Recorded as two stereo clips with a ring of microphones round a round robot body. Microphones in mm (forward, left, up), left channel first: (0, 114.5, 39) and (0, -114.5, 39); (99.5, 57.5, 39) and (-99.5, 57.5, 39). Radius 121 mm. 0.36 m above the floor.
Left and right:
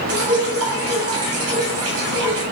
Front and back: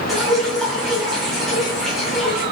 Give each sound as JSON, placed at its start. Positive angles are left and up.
{"t": 0.1, "sound": "dripping", "azimuth_deg": -90, "distance_m": 2.5}